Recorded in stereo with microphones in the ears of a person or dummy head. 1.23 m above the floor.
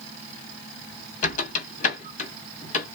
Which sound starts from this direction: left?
A squeak, at 1.2 s.